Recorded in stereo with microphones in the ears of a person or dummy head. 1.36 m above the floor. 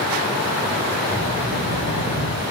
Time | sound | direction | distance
1.1 | a child speaking | 40° left (ahead or behind) | 6.5 m